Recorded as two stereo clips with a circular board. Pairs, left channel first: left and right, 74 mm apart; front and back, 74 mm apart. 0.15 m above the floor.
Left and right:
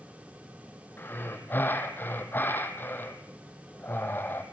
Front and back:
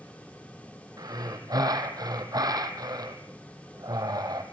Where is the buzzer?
No buzzer in this recording.